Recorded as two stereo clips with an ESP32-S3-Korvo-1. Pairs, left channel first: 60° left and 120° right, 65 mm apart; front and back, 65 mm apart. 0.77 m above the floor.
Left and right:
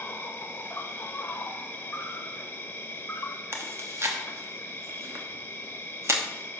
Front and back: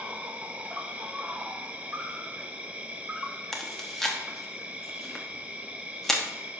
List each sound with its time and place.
0.0 s an insect: 110° left, 0.8 m
3.5 s chewing: 85° right, 1.1 m